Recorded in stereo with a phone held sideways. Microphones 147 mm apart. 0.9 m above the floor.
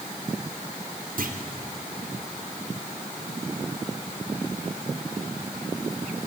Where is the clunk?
70° right (ahead or behind), 3 m.